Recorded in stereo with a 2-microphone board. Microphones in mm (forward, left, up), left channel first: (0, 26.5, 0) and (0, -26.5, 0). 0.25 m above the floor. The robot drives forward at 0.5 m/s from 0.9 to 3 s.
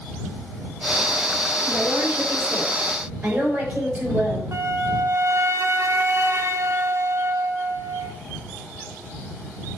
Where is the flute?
60° right (ahead or behind), 1.1 m.